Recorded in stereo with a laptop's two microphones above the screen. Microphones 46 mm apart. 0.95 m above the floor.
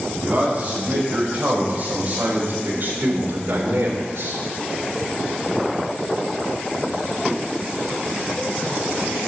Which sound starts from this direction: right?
A man speaking, at 0.2 s.